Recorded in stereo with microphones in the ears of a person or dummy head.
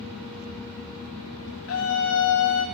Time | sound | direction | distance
1.7 | a scream | 75° left (ahead or behind) | 3 m